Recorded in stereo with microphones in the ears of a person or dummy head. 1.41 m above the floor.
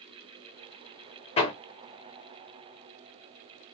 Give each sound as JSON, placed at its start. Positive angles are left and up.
{"t": 1.4, "sound": "hammering", "side_deg": 35, "distance_m": 0.6}